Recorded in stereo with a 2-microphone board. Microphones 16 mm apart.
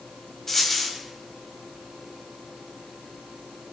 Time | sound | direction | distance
0.5 | a dropped coin | 15° left (ahead or behind) | 3 m